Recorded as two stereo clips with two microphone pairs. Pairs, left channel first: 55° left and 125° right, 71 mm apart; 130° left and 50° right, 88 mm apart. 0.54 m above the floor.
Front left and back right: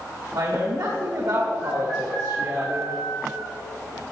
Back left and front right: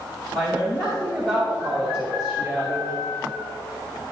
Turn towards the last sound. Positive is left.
turn(degrees=-150)